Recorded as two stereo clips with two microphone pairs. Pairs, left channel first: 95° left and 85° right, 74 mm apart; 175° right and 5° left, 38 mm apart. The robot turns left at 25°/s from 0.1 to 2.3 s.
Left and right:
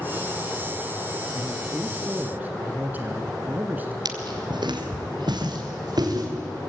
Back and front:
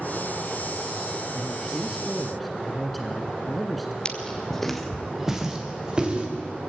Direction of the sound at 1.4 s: 65° right.